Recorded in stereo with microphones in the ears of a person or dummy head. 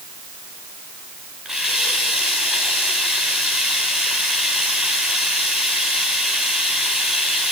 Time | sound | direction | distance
1.4 | a running tap | 5° right (ahead or behind) | 4 m